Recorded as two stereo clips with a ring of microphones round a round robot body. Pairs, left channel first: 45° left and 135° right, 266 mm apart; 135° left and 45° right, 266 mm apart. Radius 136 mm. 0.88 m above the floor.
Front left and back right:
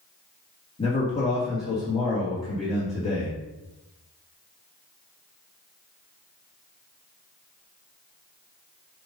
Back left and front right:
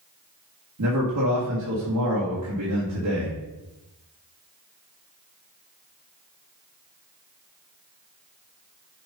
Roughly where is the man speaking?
Ahead right.